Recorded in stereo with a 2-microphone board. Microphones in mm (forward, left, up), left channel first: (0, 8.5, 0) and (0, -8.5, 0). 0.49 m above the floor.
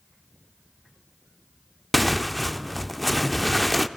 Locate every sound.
1.9 s tearing paper: 5° left (ahead or behind), 0.8 m